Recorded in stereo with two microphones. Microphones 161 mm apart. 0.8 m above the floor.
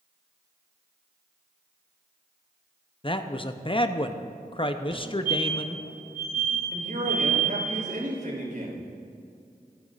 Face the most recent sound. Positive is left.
turn(degrees=-65)  # may be behind; listen again after turning